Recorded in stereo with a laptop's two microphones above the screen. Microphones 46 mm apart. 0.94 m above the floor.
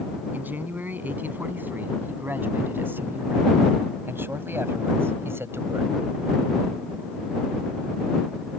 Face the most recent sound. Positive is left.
turn(degrees=-65)  # may be behind; listen again after turning